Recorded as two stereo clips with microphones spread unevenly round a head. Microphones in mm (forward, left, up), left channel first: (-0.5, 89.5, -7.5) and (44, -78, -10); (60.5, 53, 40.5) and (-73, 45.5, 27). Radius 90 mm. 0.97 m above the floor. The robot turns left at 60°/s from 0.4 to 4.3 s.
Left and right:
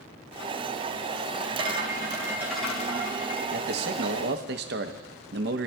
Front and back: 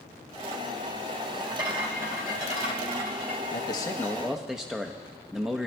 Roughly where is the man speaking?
Ahead right.